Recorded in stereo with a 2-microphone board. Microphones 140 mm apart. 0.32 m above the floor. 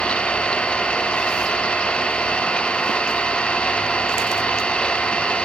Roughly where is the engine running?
Centre.